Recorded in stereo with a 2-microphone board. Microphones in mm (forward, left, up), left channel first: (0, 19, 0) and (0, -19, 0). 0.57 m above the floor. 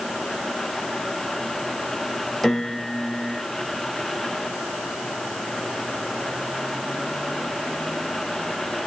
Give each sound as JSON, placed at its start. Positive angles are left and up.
{"t": 2.4, "sound": "a piano", "side_deg": 5, "distance_m": 2.0}